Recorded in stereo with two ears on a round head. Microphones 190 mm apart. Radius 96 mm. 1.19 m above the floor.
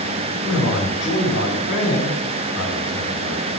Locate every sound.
0.4 s a man speaking: 70° left (ahead or behind), 4.5 m